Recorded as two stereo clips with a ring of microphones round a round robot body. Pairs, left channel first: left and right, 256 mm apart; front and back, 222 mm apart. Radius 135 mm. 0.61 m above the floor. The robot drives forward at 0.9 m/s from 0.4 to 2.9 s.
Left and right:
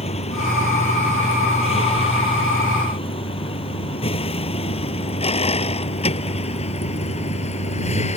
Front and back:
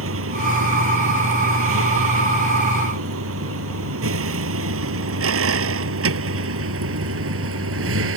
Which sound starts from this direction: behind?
A vehicle, at 0.0 s.